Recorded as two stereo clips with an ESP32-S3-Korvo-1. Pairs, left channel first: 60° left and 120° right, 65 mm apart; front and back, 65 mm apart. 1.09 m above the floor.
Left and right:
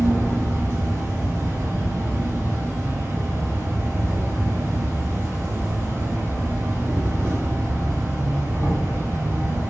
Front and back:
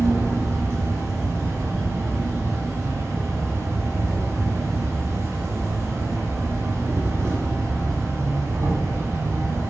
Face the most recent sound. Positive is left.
turn(degrees=-160)